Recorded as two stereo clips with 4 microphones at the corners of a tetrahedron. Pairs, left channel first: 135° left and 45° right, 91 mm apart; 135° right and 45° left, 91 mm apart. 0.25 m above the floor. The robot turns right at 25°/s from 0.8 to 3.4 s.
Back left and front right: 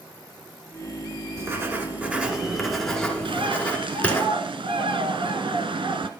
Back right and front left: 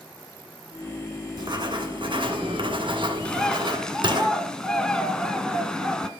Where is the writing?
10° left, 1.7 m; by 4.2 s 60° left, 1.7 m.